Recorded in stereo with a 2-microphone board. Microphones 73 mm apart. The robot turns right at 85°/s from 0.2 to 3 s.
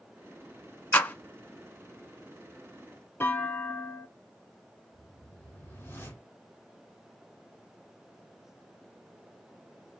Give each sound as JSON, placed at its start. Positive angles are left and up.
{"t": 0.9, "sound": "a clap", "side_deg": 25, "distance_m": 0.9}
{"t": 3.2, "sound": "a clunk", "side_deg": 30, "distance_m": 1.5}
{"t": 4.9, "sound": "a whoosh", "side_deg": 35, "distance_m": 2.0}